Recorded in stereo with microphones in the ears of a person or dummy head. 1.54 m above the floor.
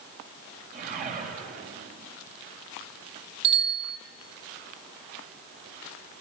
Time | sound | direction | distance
0.7 | a whoosh | 45° right (ahead or behind) | 5.5 m
3.4 | a bicycle bell | 30° right (ahead or behind) | 3 m